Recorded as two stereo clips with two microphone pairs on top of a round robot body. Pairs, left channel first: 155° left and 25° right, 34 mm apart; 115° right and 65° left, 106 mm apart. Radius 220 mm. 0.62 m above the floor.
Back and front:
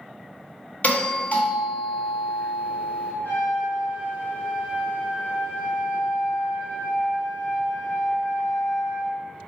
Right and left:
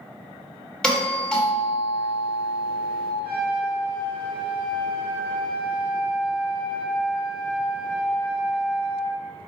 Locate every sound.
0.8 s a doorbell: 175° left, 1.8 m
3.2 s a trumpet: 170° left, 1.3 m